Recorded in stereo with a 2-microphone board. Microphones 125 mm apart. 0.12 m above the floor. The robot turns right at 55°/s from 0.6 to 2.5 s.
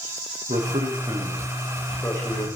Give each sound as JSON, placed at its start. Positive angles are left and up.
{"t": 0.5, "sound": "a man speaking", "azimuth_deg": -65, "distance_m": 7.0}